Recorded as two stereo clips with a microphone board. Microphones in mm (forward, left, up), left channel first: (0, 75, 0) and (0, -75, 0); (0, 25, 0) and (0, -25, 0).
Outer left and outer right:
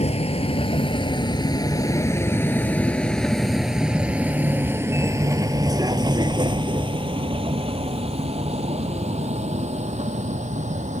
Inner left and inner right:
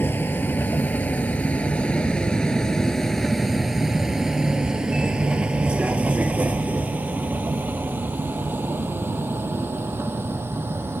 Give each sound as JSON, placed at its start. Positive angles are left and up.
{"t": 0.0, "sound": "a vehicle", "side_deg": 45}